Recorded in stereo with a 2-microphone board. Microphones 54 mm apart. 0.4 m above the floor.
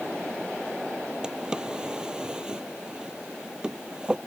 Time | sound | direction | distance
1.2 | a drawer | 15° right (ahead or behind) | ?